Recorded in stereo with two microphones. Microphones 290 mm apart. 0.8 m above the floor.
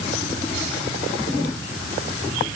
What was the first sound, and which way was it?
Only background noise.